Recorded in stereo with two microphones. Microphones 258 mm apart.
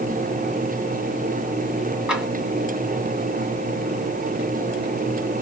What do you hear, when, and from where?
2.1 s tapping: 5° right (ahead or behind), 2 m